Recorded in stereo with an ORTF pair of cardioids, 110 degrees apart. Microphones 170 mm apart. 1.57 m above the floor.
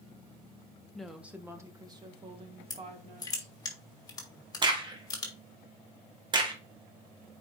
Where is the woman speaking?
5° left, 1.3 m; by 3.5 s 45° right, 2.5 m.